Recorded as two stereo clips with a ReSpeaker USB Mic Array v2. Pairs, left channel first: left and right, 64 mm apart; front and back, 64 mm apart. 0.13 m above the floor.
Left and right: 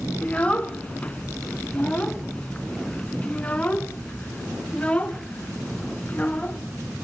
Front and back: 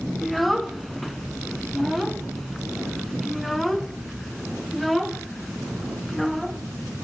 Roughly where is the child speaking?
Left.